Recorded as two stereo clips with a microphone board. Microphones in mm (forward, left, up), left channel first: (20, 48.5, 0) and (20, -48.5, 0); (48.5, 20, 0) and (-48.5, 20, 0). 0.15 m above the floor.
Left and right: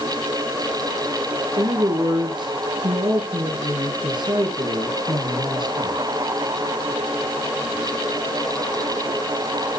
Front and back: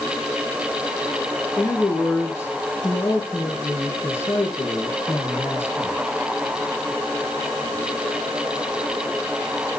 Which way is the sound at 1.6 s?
60° right.